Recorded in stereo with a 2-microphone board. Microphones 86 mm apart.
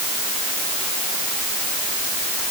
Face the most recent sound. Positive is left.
No sound to turn to.